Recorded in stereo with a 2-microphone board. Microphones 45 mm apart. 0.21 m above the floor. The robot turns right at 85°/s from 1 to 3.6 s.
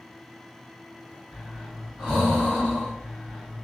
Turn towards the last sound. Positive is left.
turn(degrees=10)  # may be behind; listen again after turning